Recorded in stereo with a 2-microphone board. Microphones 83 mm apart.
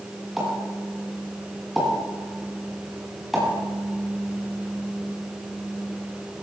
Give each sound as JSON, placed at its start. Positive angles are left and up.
{"t": 0.4, "sound": "a pop", "side_deg": -5, "distance_m": 9.5}